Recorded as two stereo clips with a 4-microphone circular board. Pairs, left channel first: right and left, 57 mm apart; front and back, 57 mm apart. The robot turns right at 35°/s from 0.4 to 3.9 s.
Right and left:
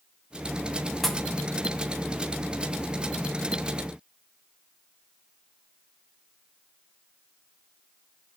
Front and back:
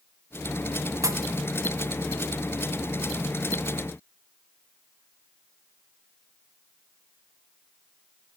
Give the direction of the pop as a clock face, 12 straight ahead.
6 o'clock.